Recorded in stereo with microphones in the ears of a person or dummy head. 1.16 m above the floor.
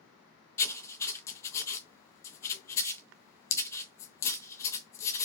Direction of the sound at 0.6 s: 15° left (ahead or behind).